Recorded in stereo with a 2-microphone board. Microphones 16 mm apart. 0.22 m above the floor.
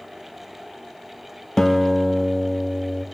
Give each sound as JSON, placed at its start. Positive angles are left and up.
{"t": 1.6, "sound": "a guitar", "side_deg": 35, "distance_m": 1.8}